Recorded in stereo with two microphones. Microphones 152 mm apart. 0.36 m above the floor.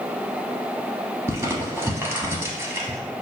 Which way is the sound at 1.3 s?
15° right (ahead or behind).